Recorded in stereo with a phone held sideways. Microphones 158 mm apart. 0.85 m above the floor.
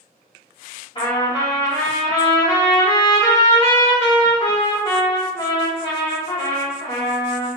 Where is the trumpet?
35° left (ahead or behind), 2 m.